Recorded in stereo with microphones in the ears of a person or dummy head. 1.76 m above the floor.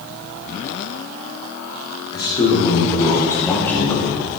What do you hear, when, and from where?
2.1 s a man speaking: 20° left (ahead or behind), 5.5 m; by 4.1 s 5° right (ahead or behind), 3.5 m